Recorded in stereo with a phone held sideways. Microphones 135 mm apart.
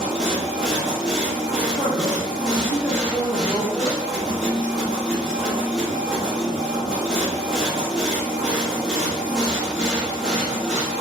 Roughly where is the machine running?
Centre.